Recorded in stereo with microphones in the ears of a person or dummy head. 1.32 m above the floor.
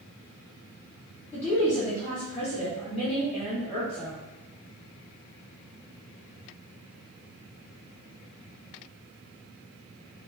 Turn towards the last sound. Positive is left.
turn(degrees=15)  # may be behind; listen again after turning